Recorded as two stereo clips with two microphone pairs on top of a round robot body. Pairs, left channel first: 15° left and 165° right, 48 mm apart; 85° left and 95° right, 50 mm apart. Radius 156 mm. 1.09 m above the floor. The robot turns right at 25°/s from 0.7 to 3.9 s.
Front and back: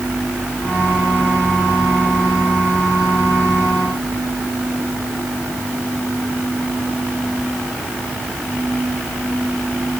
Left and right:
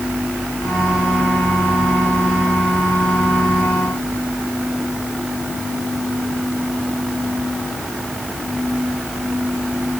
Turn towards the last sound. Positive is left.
No sound to turn to.